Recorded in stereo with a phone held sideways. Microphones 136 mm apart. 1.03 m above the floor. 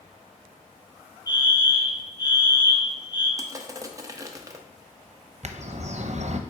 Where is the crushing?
25° right (ahead or behind), 0.6 m.